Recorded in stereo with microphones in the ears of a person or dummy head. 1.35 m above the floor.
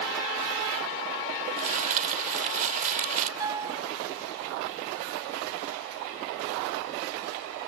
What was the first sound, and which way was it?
Crumpling, 50° right (ahead or behind).